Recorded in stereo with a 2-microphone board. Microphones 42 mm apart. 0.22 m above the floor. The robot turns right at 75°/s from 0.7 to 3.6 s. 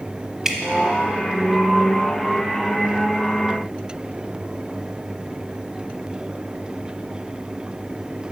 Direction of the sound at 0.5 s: 10° right (ahead or behind).